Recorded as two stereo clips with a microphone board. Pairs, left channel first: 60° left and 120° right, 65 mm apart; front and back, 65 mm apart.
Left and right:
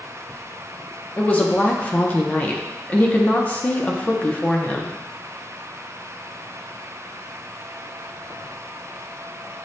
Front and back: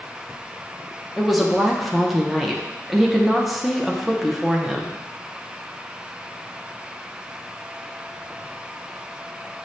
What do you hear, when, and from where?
1.2 s a woman speaking: 95° left, 0.5 m